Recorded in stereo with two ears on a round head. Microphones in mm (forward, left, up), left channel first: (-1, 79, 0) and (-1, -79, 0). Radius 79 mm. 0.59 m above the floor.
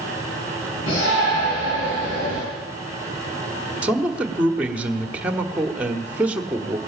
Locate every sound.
0.9 s a shout: 80° left, 7.5 m
3.8 s a man speaking: 5° right (ahead or behind), 1.3 m